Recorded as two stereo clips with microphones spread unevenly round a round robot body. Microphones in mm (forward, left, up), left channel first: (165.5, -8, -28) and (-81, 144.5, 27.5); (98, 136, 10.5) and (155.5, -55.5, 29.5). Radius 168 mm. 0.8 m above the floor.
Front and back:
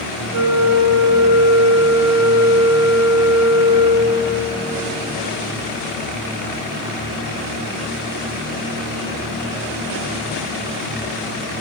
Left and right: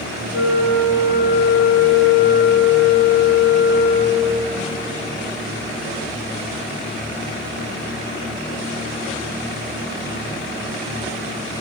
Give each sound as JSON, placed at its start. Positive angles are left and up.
{"t": 0.3, "sound": "a flute", "azimuth_deg": 115, "distance_m": 1.1}